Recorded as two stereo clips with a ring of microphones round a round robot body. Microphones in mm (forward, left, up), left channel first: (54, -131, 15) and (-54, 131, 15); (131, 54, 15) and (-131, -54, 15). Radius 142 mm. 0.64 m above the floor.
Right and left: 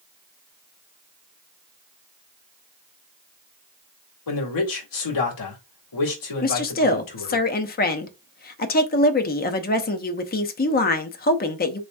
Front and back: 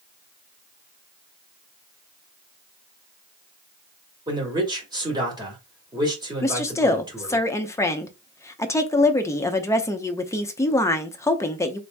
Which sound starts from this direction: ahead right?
A woman speaking, at 6.4 s.